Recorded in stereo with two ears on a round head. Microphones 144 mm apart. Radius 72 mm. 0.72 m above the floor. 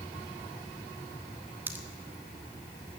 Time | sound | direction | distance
1.7 | a pop | 15° right (ahead or behind) | 1.2 m